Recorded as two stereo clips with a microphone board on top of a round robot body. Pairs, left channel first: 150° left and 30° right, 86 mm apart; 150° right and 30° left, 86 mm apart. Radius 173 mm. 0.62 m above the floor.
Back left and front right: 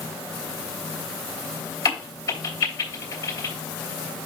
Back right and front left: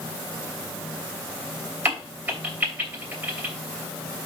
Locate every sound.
1.9 s a crack: 100° left, 3 m